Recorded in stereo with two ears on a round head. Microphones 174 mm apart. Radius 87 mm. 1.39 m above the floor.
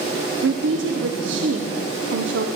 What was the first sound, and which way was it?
A woman speaking, 65° right (ahead or behind).